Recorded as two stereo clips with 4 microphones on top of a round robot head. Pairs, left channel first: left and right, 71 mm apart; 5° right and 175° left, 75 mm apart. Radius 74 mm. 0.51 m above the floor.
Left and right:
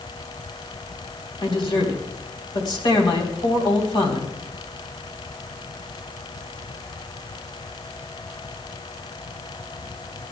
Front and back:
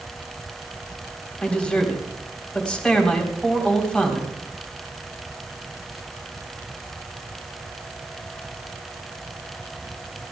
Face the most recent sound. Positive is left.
turn(degrees=70)